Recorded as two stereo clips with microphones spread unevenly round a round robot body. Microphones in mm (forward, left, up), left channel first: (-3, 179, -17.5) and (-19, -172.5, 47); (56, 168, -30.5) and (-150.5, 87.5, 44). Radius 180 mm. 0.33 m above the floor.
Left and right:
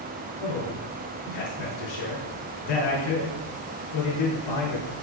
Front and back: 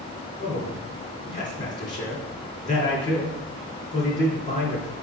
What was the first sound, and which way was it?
A man speaking, 85° left.